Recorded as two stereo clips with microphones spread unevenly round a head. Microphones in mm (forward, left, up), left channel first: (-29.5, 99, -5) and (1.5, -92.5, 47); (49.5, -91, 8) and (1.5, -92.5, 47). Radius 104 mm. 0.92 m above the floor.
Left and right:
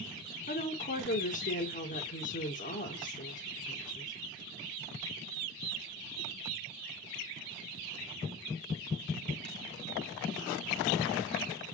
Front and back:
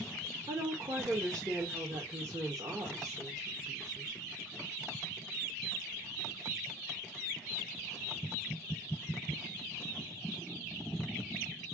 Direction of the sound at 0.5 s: 125° left.